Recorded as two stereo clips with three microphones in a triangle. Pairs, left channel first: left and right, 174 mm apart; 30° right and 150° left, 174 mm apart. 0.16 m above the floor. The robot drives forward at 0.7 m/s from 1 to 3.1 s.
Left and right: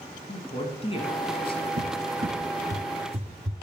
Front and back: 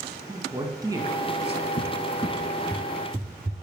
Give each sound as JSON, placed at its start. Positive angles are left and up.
{"t": 0.3, "sound": "a man speaking", "azimuth_deg": 100, "distance_m": 1.2}
{"t": 1.8, "sound": "a cupboard door", "azimuth_deg": -65, "distance_m": 0.8}